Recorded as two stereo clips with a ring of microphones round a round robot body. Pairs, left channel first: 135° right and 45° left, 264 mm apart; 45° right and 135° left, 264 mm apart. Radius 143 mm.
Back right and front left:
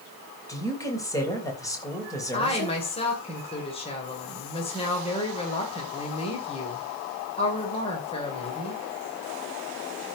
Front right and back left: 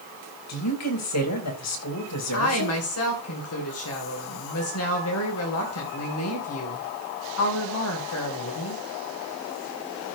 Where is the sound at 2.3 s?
70° right, 2.5 m.